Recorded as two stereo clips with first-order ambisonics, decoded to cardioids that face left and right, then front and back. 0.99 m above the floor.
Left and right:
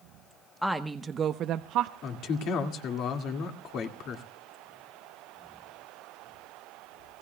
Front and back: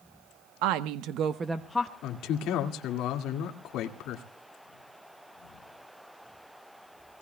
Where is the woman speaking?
175° left, 1.0 m; by 1.9 s 70° right, 0.8 m.